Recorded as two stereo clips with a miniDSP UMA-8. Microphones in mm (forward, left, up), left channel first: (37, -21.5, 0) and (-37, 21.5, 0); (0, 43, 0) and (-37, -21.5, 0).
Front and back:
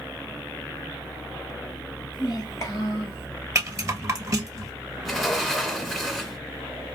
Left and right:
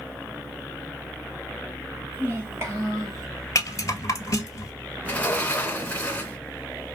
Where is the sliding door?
65° left, 1.1 m.